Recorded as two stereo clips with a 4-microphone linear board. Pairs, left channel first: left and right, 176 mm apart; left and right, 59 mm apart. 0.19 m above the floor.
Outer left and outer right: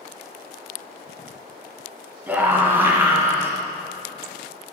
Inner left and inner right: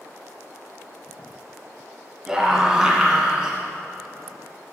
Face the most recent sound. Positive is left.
turn(degrees=-15)  # may be behind; listen again after turning